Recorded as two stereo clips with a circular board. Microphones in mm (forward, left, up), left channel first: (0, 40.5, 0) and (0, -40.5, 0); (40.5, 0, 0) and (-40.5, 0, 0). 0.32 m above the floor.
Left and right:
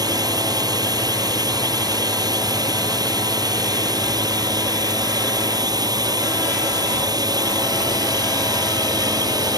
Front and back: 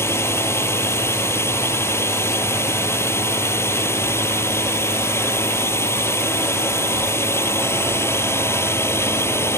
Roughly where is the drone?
Ahead right.